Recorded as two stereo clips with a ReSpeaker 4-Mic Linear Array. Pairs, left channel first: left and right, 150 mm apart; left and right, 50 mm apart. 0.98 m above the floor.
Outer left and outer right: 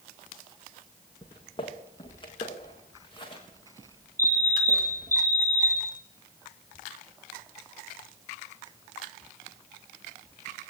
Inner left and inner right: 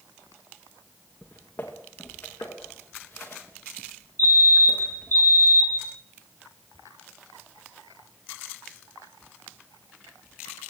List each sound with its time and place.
1.2 s footsteps: 35° left (ahead or behind), 6 m
4.2 s a fire alarm: 70° right (ahead or behind), 6.5 m